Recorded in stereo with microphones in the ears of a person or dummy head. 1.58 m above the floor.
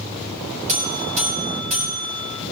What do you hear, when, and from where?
0.7 s a buzzer: 40° right (ahead or behind), 4 m